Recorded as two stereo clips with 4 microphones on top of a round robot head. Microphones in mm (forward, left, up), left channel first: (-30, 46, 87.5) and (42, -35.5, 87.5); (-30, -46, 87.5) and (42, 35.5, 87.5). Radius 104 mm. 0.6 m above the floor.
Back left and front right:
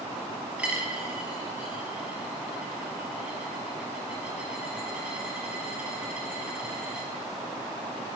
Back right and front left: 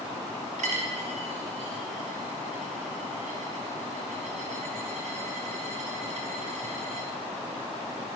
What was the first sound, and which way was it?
A dropped coin, 30° left.